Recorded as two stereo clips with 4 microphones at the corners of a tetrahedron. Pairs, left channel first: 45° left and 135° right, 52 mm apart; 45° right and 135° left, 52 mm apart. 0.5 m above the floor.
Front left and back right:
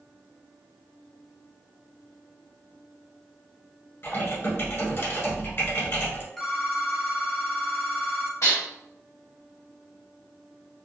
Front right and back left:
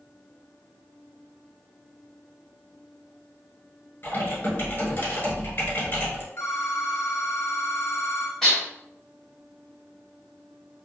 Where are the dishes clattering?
40° left, 1.5 m.